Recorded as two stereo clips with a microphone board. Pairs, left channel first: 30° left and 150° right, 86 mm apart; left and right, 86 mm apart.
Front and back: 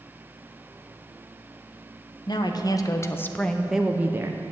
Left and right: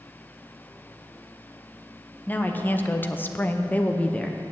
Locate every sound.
2.3 s a woman speaking: 25° left, 0.8 m; by 4.4 s 170° left, 0.7 m